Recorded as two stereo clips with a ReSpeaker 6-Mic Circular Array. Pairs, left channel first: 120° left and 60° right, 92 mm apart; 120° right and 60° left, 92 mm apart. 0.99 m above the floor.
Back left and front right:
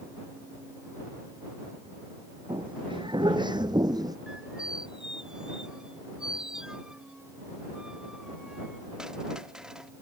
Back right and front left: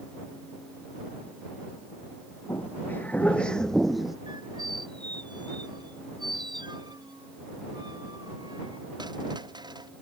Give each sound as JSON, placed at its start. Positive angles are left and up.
{"t": 2.5, "sound": "footsteps", "azimuth_deg": -60}
{"t": 4.3, "sound": "a squeak", "azimuth_deg": 20}